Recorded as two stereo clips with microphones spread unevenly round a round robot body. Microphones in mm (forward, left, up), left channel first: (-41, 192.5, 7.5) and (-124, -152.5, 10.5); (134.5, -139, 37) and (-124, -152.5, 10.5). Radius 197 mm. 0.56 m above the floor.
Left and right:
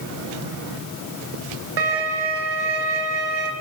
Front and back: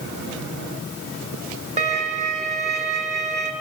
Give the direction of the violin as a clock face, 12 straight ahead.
4 o'clock.